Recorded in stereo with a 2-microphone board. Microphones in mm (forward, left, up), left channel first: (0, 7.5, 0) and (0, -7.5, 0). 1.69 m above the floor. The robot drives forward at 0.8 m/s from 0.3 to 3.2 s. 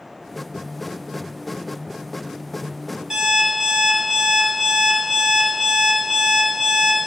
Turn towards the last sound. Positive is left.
turn(degrees=-40)  # may be behind; listen again after turning